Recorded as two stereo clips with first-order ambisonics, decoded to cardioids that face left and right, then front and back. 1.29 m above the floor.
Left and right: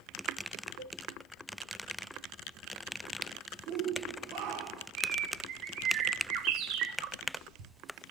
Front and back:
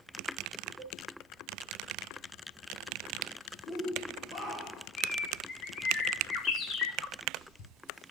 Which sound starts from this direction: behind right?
A cowbell, at 0.8 s.